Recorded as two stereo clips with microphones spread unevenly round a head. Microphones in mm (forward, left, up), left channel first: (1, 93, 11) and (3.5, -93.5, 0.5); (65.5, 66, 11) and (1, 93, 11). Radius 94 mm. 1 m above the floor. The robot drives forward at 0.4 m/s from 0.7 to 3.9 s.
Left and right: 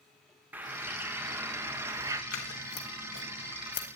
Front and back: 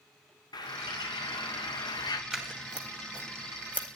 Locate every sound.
0.5 s a bird: 10° right, 1.2 m; by 2.2 s 15° right, 0.6 m
2.3 s scissors: 75° left, 2 m; by 4.0 s 90° left, 1.9 m